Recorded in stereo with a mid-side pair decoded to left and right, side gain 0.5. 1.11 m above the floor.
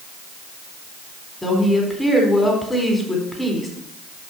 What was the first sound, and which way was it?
A woman speaking, 10° left.